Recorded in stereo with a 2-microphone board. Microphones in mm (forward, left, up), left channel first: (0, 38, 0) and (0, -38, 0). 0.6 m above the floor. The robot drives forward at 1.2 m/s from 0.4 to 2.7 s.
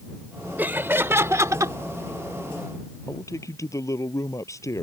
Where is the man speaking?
40° left (ahead or behind).